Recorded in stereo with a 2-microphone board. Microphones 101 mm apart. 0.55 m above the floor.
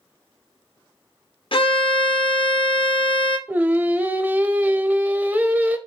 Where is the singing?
15° right (ahead or behind), 0.5 m.